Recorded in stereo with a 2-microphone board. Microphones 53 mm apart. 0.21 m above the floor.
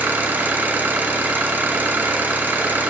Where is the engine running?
35° right (ahead or behind), 0.9 m.